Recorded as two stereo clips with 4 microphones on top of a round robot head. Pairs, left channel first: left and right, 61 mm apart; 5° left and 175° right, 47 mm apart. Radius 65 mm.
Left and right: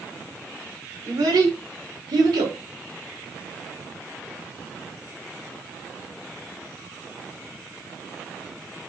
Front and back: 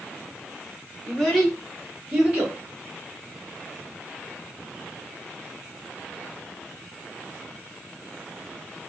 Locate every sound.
1.1 s a child speaking: 75° right, 2.0 m; by 2.6 s 105° right, 2 m